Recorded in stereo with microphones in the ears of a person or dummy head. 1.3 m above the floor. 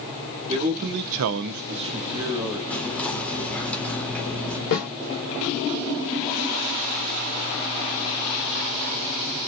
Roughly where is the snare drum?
Left.